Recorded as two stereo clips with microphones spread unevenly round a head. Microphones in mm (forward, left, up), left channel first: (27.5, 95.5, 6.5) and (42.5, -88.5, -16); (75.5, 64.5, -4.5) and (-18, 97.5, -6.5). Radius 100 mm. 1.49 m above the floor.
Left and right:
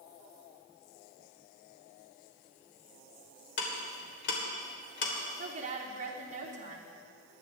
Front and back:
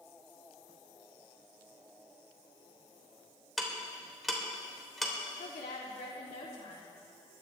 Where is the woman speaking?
30° right, 3 m.